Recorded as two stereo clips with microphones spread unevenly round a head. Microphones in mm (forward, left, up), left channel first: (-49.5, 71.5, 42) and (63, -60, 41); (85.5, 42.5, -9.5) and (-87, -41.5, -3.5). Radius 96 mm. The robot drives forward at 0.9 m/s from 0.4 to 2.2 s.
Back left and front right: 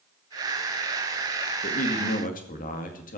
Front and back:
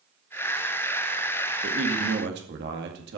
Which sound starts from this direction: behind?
A man speaking, at 1.6 s.